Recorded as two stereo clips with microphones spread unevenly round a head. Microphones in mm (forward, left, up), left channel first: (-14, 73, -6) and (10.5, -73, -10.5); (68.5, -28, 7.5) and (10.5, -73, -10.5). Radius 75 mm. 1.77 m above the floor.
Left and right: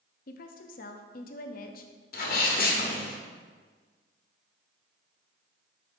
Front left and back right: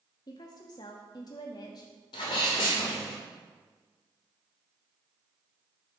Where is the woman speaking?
70° left, 0.6 m.